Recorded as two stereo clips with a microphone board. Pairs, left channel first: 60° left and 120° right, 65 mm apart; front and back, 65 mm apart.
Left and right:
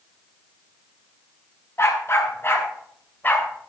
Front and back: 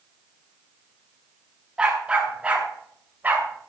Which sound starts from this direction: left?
A dog barking, at 1.8 s.